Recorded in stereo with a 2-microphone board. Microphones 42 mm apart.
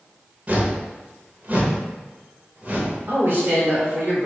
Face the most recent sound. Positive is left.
turn(degrees=-60)  # may be behind; listen again after turning